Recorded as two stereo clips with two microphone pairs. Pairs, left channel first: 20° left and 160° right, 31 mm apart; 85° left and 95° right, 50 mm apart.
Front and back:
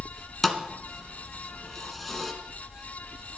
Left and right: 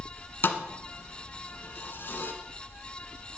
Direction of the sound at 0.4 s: 105° left.